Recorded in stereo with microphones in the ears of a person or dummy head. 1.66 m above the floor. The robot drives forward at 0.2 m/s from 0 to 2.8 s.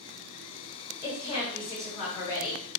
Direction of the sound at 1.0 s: 35° left (ahead or behind).